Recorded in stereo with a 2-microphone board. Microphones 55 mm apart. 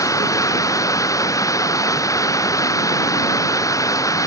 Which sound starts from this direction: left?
Running water, at 0.0 s.